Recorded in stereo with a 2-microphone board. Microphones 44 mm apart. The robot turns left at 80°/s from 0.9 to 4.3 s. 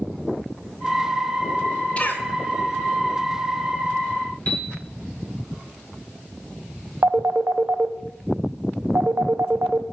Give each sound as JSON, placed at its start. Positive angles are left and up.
{"t": 2.0, "sound": "a cough", "side_deg": 30, "distance_m": 1.1}
{"t": 4.5, "sound": "a piano", "side_deg": 40, "distance_m": 2.0}
{"t": 7.0, "sound": "a phone ringing", "side_deg": -60, "distance_m": 0.6}